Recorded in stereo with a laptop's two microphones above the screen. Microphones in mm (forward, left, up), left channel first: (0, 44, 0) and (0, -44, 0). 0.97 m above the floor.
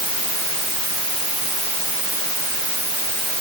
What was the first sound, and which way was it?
Only background noise.